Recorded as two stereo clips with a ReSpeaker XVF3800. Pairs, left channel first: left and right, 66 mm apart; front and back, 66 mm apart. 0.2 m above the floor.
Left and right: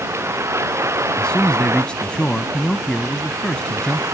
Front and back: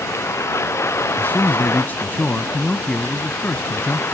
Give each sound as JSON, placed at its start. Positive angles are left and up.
{"t": 0.0, "sound": "a vehicle", "azimuth_deg": -45}
{"t": 1.2, "sound": "a man speaking", "azimuth_deg": 25}